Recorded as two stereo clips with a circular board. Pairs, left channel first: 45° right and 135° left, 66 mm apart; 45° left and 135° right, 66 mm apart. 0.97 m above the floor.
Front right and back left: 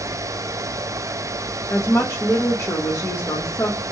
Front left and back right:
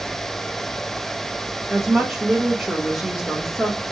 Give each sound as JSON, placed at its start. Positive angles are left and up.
{"t": 1.7, "sound": "a woman speaking", "azimuth_deg": -50, "distance_m": 1.0}